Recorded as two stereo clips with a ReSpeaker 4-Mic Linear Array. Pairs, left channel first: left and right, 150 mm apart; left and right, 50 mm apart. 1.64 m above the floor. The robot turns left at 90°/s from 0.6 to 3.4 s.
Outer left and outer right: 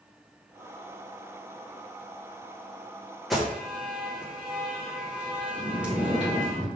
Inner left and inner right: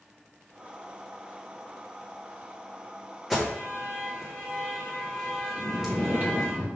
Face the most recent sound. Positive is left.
turn(degrees=-45)  # may be behind; listen again after turning